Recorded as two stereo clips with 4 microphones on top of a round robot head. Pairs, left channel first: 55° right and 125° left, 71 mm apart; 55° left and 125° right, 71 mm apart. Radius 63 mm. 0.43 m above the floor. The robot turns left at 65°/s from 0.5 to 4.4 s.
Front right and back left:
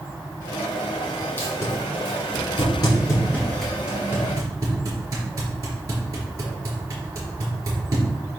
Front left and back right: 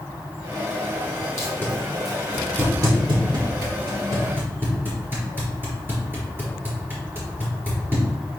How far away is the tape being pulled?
About 4 m.